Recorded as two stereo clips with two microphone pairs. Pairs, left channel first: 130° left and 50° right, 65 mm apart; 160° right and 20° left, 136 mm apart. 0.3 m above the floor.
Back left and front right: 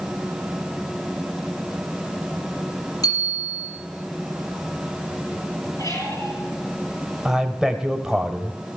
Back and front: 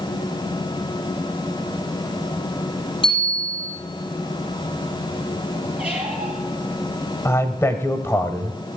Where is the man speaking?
120° right, 0.9 m.